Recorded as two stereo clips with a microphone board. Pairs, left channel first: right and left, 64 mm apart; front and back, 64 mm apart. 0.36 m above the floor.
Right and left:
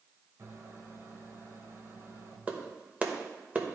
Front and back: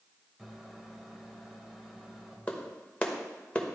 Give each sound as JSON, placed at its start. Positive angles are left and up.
{"t": 0.4, "sound": "a microwave", "azimuth_deg": 90, "distance_m": 1.4}
{"t": 2.5, "sound": "a clap", "azimuth_deg": 50, "distance_m": 1.0}